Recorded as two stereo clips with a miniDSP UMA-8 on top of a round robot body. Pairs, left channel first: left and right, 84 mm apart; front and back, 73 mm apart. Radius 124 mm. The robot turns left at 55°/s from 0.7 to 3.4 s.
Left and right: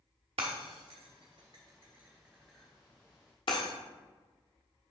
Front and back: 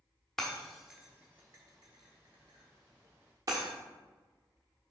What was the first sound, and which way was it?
Breaking glass, 85° right.